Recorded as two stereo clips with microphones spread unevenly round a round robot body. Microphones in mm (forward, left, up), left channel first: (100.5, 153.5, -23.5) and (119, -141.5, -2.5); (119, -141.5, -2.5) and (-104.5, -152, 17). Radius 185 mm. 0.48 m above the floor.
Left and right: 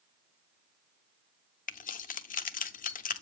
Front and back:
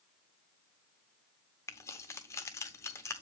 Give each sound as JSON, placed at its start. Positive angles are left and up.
{"t": 1.7, "sound": "keys jangling", "azimuth_deg": 65, "distance_m": 0.6}